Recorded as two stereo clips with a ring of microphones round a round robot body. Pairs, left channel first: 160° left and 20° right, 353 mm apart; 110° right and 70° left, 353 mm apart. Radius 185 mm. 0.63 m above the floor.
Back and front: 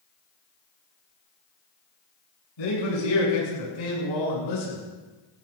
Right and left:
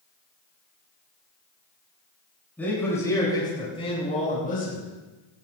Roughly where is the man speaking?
Behind.